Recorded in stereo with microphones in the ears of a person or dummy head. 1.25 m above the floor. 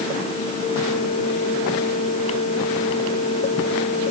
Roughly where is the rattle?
No rattle in this recording.